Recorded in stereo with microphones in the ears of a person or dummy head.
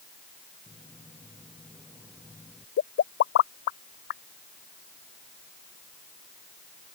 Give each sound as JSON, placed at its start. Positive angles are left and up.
{"t": 0.7, "sound": "footsteps", "side_deg": 5}
{"t": 2.8, "sound": "a pop", "side_deg": 55}